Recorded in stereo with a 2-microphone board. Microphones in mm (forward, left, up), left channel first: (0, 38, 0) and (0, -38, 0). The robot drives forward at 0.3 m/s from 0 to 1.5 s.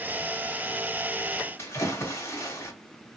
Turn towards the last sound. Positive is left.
turn(degrees=25)  # may be behind; listen again after turning